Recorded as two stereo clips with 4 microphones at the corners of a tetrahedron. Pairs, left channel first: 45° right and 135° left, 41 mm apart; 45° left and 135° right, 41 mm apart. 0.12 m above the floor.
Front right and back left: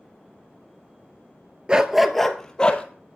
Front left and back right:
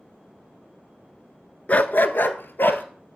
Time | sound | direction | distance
1.7 | a dog barking | 80° left | 0.5 m